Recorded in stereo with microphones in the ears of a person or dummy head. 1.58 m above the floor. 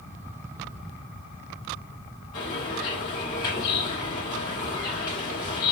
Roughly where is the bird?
Centre.